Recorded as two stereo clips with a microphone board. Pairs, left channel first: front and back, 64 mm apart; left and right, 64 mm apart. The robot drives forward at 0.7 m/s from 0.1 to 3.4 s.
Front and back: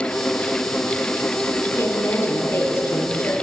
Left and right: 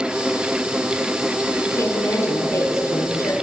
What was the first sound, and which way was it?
A woman speaking, 50° left.